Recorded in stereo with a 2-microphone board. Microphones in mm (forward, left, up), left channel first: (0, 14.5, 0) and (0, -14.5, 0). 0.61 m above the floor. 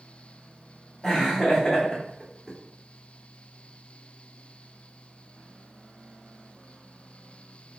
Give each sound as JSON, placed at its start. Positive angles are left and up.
{"t": 1.0, "sound": "laughter", "side_deg": 20, "distance_m": 1.4}